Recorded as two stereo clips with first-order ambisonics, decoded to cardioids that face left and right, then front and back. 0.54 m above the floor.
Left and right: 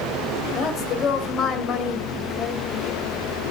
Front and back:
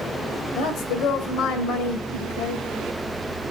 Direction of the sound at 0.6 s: 35° left.